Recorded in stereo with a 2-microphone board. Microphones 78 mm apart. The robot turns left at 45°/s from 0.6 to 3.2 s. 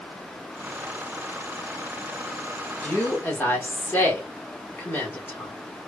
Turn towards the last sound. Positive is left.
turn(degrees=30)  # may be behind; listen again after turning